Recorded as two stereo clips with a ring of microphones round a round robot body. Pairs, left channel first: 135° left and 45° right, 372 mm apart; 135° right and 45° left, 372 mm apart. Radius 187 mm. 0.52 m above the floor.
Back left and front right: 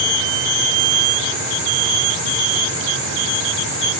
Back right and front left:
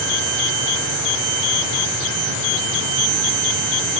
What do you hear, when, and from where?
Only background noise.